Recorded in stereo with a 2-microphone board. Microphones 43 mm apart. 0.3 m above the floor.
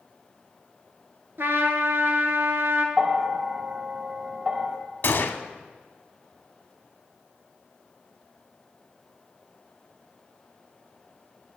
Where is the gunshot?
55° left (ahead or behind), 0.6 m.